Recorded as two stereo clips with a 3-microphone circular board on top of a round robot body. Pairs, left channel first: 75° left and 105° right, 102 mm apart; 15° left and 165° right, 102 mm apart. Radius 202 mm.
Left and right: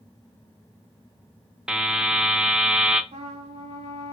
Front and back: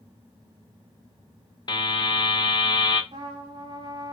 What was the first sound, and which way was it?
A buzzer, 25° right.